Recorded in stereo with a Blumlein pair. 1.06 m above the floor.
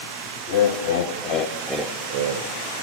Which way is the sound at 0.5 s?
55° left.